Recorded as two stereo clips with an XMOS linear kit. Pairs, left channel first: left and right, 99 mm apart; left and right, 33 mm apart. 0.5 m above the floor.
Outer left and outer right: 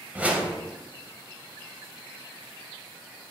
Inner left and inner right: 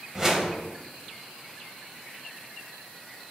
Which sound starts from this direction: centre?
A whoosh, at 0.1 s.